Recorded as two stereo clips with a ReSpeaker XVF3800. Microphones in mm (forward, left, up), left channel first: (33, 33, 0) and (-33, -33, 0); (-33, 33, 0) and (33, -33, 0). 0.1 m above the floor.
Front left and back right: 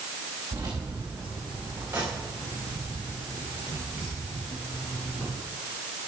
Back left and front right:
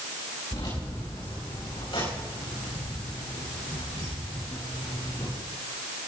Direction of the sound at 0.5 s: 165° left.